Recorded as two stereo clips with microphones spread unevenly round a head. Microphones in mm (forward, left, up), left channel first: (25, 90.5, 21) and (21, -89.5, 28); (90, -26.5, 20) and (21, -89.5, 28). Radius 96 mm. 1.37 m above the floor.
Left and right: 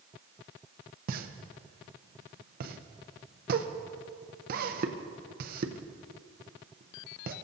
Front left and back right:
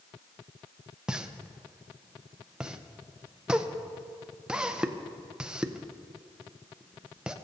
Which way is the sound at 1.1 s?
60° right.